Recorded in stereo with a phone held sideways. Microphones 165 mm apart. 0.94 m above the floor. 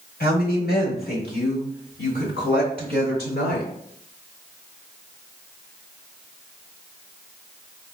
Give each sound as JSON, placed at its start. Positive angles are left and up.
{"t": 0.2, "sound": "a woman speaking", "side_deg": 65, "distance_m": 1.7}